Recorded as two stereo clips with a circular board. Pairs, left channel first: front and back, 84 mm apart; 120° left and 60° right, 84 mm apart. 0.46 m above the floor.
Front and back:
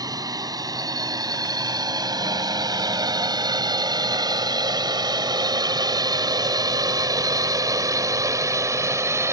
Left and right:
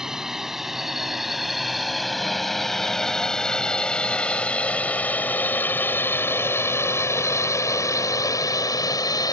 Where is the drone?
145° right; by 9.3 s 135° left.